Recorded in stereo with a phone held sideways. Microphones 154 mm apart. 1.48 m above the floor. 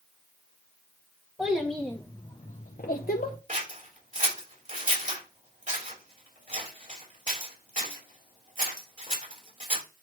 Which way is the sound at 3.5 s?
55° right (ahead or behind).